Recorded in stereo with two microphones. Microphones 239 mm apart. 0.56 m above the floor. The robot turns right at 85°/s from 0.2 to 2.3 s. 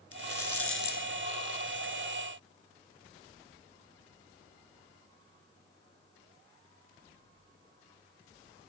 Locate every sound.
0.1 s a rattle: 70° left (ahead or behind), 1.6 m; by 1.9 s 35° right (ahead or behind), 1.6 m